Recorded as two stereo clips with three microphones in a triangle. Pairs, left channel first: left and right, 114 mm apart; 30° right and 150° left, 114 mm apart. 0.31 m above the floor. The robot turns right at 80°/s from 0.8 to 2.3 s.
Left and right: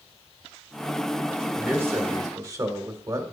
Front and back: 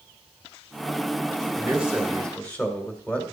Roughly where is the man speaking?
Behind.